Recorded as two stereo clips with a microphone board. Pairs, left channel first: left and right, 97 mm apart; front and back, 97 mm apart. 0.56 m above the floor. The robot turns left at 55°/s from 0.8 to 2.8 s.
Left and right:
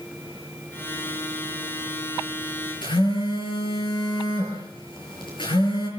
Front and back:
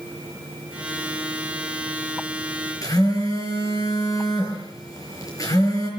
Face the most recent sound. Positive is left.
turn(degrees=55)